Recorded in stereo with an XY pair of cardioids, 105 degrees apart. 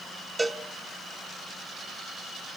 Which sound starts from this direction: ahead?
A cowbell, at 0.4 s.